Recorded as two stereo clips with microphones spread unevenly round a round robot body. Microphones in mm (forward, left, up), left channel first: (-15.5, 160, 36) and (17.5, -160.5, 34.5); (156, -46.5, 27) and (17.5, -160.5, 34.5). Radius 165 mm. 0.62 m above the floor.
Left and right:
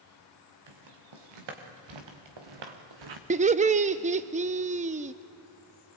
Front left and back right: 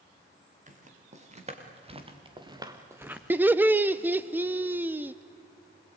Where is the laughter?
70° right, 0.6 m.